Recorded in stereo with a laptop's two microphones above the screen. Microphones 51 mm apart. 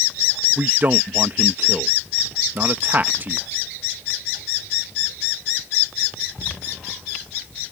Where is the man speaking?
40° right (ahead or behind).